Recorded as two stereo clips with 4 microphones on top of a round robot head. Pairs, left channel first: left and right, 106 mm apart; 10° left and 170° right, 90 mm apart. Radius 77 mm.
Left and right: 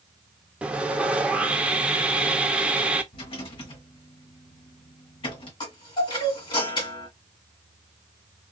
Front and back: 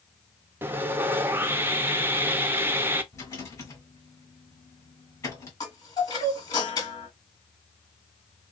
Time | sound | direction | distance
0.6 | sawing | 155° right | 0.5 m
3.1 | a rattle | 55° left | 1.6 m
5.6 | a chime | 50° left | 1.7 m